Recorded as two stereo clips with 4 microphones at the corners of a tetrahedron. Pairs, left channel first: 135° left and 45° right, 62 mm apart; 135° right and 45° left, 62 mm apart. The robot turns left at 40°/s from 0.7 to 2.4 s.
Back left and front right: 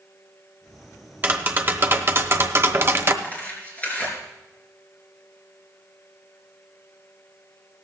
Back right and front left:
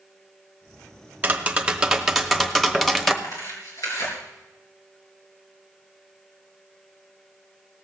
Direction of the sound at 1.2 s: 5° right.